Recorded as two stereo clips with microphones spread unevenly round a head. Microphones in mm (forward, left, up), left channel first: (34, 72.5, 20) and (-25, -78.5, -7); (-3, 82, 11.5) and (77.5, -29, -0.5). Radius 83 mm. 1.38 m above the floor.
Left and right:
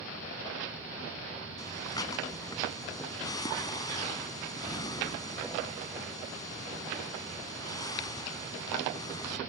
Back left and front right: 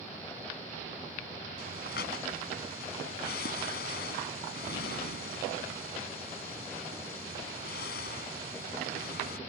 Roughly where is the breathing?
Behind left.